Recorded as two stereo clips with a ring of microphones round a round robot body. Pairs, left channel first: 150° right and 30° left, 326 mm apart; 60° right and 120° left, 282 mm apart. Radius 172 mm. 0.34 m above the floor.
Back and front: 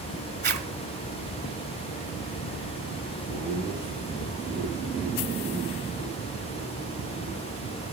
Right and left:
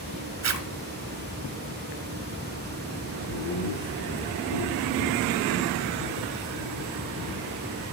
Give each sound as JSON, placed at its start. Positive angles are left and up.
{"t": 0.4, "sound": "a zipper", "azimuth_deg": 90, "distance_m": 4.0}
{"t": 3.3, "sound": "laughter", "azimuth_deg": -50, "distance_m": 7.0}